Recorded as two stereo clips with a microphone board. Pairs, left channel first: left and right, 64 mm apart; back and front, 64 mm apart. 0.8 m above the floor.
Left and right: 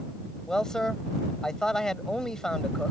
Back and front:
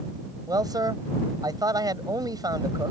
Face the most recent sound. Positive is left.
turn(degrees=10)